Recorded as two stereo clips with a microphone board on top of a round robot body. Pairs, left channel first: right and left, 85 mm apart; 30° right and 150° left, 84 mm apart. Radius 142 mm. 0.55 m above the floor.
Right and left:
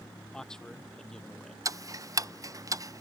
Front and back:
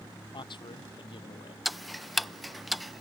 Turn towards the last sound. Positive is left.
turn(degrees=60)